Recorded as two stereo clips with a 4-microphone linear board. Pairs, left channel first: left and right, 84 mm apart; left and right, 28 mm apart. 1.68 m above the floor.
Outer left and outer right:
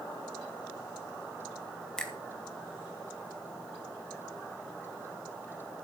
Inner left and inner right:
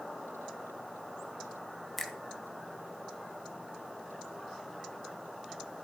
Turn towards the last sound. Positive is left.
turn(degrees=10)  # may be behind; listen again after turning